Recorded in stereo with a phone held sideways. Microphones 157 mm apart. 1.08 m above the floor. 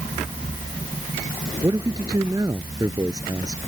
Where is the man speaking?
25° right (ahead or behind).